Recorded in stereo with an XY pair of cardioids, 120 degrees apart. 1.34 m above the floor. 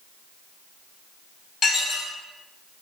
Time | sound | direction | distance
1.6 | dishes clattering | 55° left | 1.0 m